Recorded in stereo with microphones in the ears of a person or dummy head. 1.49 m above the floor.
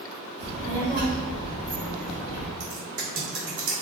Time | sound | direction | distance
0.4 | a child speaking | 40° right (ahead or behind) | 1.1 m
2.6 | typing on a keyboard | 55° right (ahead or behind) | 1.4 m